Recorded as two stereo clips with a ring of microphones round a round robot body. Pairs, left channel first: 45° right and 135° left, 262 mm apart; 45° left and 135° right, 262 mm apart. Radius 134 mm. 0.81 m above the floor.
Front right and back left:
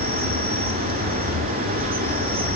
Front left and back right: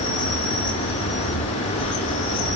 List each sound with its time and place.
0.0 s an insect: 80° left, 1.9 m